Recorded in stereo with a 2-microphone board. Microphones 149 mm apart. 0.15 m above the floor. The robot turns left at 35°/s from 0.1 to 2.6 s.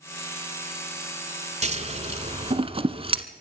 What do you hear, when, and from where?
1.6 s scissors: 45° right (ahead or behind), 0.9 m; by 3.2 s 40° right (ahead or behind), 0.9 m